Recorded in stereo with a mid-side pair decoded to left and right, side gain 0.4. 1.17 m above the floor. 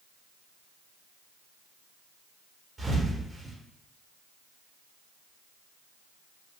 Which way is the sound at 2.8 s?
30° right.